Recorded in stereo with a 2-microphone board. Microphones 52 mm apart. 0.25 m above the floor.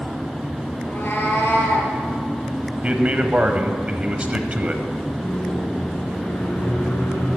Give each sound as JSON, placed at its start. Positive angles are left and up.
{"t": 0.8, "sound": "a cat meowing", "side_deg": 40, "distance_m": 2.0}
{"t": 2.8, "sound": "a man speaking", "side_deg": -25, "distance_m": 1.0}
{"t": 5.2, "sound": "a microwave", "side_deg": 45, "distance_m": 3.0}